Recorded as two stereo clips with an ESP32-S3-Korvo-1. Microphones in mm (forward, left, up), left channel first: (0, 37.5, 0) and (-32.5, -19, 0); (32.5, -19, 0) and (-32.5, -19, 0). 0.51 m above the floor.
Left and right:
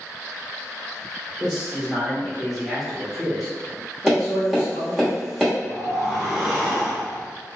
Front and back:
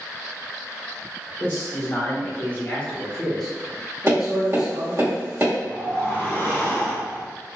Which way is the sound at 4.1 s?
160° left.